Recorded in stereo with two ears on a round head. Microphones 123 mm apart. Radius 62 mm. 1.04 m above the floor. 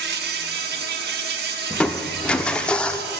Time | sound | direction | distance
0.0 | an insect | 85° right | 1.1 m
1.7 | crushing | 10° left (ahead or behind) | 0.6 m